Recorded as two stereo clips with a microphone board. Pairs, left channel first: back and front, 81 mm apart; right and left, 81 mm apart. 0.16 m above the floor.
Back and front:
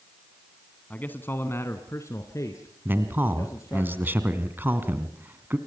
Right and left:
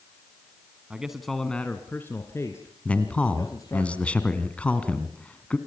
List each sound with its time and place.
0.9 s a man speaking: 145° left, 1.3 m; by 3.9 s 130° right, 3 m
2.9 s a man speaking: 35° right, 1.8 m